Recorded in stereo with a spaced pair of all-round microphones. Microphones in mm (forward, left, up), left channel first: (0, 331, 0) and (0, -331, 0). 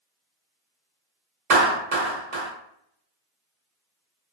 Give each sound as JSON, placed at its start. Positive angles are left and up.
{"t": 1.5, "sound": "a clap", "side_deg": -65, "distance_m": 1.0}